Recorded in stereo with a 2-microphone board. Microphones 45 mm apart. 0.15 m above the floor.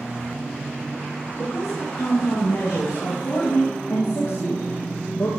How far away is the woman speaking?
About 8 m.